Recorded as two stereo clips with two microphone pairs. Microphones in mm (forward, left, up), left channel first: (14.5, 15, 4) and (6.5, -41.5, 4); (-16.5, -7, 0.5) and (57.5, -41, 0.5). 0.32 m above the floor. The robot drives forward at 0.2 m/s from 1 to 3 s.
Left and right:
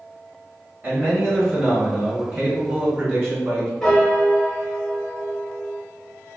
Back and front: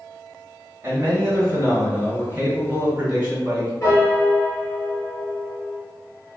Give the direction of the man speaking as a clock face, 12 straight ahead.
2 o'clock.